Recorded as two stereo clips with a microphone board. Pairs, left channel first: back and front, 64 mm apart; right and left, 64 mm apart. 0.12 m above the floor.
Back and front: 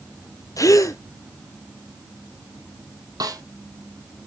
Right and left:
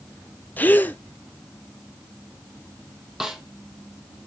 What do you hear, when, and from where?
0.6 s a gasp: 150° right, 0.8 m
3.2 s a snare drum: 10° left, 1.5 m